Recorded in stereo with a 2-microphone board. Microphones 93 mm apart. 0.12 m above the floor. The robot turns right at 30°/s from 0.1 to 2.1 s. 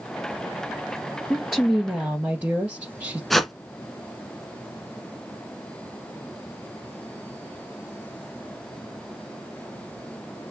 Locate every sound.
1.3 s a woman speaking: centre (ahead or behind), 2.0 m; by 3.2 s 20° right (ahead or behind), 2.0 m
3.3 s a whoosh: centre (ahead or behind), 1.1 m